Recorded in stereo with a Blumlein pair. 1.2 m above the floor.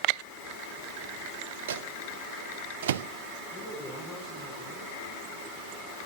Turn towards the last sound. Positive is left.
turn(degrees=15)